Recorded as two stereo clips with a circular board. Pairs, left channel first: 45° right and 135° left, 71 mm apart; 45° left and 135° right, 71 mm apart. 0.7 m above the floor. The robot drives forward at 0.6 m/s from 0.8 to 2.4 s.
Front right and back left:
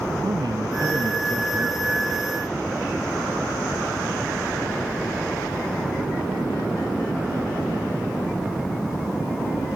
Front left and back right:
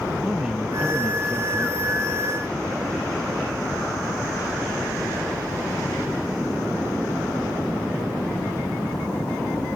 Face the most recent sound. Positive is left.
turn(degrees=150)